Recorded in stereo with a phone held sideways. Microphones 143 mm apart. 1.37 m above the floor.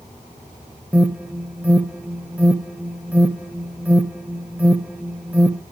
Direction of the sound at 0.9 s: 10° right (ahead or behind).